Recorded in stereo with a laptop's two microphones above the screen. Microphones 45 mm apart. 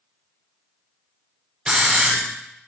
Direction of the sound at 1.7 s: 20° right (ahead or behind).